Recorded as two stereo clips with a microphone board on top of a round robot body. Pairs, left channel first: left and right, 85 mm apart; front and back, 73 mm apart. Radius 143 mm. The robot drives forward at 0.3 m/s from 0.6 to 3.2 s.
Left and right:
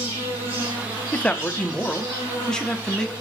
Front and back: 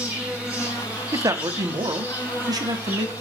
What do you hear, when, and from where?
0.0 s an insect: 105° right, 3.5 m; by 3.2 s 115° right, 4 m
1.1 s a man speaking: 160° left, 0.7 m; by 3.1 s 170° left, 1.1 m